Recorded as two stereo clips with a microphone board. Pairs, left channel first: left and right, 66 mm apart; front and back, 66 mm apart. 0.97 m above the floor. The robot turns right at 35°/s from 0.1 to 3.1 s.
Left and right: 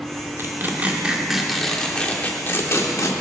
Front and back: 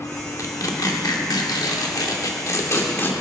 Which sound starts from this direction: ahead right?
Tearing paper, at 0.4 s.